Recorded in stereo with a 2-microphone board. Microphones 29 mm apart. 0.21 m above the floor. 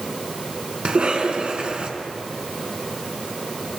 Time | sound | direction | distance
0.8 | a cough | 45° right (ahead or behind) | 2.5 m